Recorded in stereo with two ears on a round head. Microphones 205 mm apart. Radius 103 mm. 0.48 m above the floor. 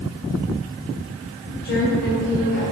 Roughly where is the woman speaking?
Left.